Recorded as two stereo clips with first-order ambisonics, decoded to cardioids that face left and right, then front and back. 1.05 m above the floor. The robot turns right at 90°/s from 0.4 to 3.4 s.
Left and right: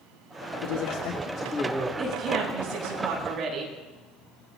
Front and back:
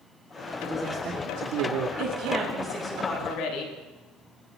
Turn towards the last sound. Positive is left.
turn(degrees=-30)